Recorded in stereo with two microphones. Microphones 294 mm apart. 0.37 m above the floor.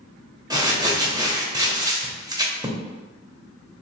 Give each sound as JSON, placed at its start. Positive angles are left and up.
{"t": 0.5, "sound": "crumpling", "side_deg": -15, "distance_m": 0.6}